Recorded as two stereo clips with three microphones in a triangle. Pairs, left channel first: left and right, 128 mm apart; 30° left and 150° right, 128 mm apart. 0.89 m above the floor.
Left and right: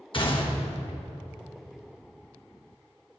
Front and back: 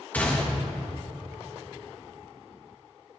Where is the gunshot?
100° left, 1.3 m.